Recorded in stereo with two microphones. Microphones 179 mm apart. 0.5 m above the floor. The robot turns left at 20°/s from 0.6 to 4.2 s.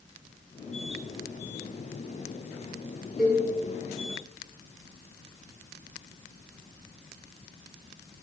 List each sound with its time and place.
3.2 s a cowbell: 5° right (ahead or behind), 0.7 m; by 3.4 s 10° right (ahead or behind), 0.7 m